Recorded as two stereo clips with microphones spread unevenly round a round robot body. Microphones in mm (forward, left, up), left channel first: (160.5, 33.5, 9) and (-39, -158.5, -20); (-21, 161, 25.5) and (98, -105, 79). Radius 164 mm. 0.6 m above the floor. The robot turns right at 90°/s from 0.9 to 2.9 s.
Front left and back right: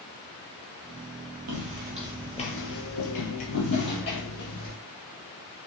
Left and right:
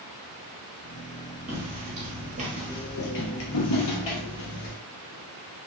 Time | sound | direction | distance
1.5 | footsteps | 125° right | 1.1 m